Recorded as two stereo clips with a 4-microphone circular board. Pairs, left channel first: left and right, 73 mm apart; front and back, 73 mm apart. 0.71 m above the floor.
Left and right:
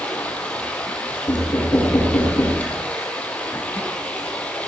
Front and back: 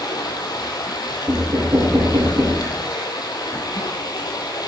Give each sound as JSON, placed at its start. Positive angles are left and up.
{"t": 0.0, "sound": "running water", "azimuth_deg": 20, "distance_m": 2.5}
{"t": 1.3, "sound": "knocking", "azimuth_deg": 135, "distance_m": 6.0}